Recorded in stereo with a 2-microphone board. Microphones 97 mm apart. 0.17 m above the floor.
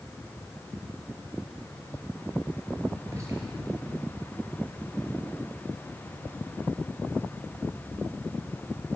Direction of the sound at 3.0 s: 30° right (ahead or behind).